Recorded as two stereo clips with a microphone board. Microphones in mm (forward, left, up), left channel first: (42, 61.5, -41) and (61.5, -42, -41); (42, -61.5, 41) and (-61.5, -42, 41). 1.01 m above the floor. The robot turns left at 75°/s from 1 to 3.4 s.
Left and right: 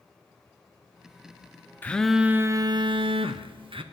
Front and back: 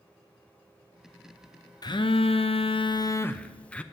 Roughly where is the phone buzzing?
Ahead left.